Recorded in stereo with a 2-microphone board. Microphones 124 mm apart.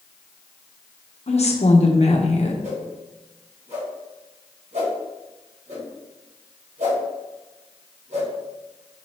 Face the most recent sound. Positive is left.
turn(degrees=-70)  # may be behind; listen again after turning